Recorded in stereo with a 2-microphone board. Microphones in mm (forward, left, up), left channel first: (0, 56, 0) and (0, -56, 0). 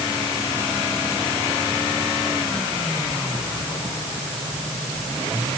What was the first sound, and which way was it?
Only background noise.